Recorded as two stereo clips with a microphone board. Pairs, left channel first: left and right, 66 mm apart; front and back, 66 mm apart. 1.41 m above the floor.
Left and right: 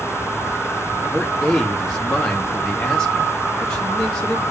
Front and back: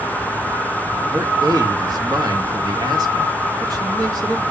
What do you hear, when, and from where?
1.1 s a man speaking: 170° left, 2 m